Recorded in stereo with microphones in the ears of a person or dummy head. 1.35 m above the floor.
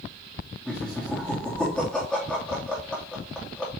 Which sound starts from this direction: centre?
Laughter, at 0.7 s.